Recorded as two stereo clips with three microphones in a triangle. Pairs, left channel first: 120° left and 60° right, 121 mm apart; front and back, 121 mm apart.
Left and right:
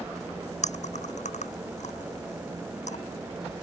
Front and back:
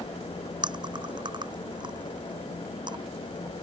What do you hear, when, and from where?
0.6 s chewing: 130° left